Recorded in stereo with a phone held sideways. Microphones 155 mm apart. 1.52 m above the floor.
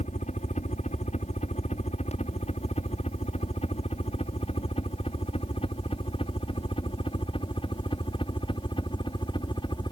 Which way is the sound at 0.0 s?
50° left (ahead or behind).